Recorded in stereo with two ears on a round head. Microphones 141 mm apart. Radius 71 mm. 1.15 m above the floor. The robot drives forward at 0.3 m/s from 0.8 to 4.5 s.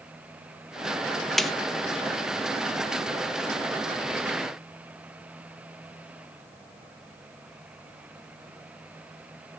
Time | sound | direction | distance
1.4 | a snare drum | centre (ahead or behind) | 0.6 m